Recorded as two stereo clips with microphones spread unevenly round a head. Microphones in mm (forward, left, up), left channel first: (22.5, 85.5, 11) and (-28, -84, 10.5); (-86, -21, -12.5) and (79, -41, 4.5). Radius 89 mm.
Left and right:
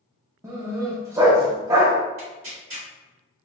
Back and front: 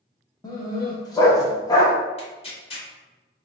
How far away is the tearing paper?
About 1.4 m.